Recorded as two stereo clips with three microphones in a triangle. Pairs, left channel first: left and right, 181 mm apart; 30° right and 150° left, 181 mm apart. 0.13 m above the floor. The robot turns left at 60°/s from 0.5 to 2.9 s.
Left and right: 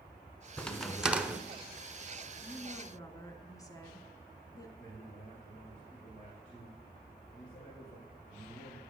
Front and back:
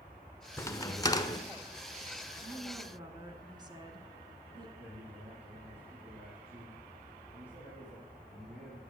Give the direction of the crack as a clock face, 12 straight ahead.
11 o'clock.